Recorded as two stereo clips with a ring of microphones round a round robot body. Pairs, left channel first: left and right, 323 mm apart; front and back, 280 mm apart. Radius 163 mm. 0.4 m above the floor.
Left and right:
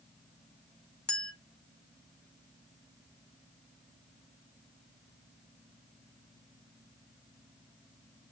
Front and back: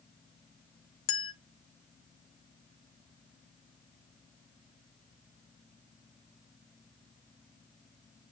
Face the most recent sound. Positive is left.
turn(degrees=5)